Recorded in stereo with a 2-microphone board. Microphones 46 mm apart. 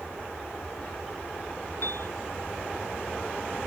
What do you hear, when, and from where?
1.8 s a piano: 60° left (ahead or behind)